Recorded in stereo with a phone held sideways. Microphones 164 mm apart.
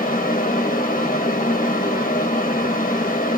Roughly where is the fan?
Left.